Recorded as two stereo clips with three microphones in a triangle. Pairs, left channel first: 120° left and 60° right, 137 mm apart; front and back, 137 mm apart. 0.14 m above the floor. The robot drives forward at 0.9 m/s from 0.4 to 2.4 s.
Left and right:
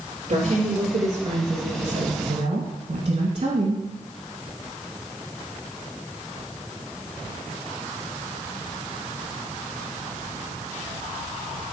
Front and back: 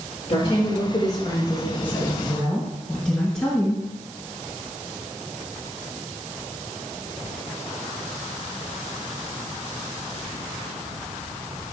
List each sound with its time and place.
0.3 s a woman speaking: 35° right, 3 m; by 3.9 s 80° right, 1.9 m